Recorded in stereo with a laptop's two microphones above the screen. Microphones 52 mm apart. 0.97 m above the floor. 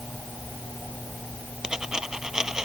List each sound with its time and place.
1.6 s a dropped coin: 10° right (ahead or behind)